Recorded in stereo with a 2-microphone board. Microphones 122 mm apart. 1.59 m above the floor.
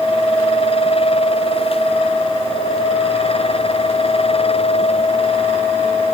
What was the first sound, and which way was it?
Only background noise.